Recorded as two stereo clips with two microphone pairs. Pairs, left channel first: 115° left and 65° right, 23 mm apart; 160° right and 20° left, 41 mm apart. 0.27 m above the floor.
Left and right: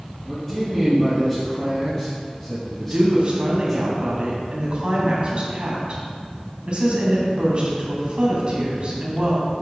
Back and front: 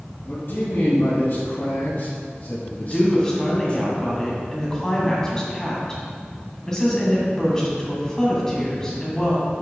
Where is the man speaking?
165° right, 2.5 m; by 3.8 s 160° right, 1.4 m.